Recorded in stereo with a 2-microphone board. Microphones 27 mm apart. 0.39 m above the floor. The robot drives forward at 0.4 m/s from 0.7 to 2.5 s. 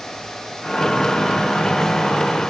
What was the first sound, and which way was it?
Only background noise.